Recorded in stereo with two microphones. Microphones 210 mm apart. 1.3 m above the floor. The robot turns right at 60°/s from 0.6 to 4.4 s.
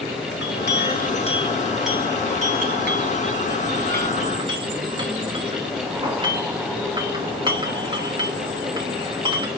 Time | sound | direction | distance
0.3 | a clink | 60° left (ahead or behind) | 1.0 m